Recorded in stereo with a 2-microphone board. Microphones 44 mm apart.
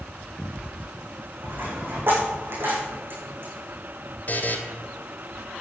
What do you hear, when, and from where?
1.4 s a dropped coin: 55° right (ahead or behind), 9.5 m
4.3 s a buzzer: 40° left (ahead or behind), 2 m